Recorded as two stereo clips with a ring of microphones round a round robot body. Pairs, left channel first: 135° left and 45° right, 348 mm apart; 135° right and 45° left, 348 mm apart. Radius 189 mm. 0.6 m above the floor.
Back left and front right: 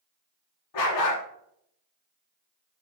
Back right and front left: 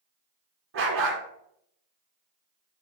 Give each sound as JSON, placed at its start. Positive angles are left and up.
{"t": 0.7, "sound": "a dog barking", "azimuth_deg": 100, "distance_m": 1.9}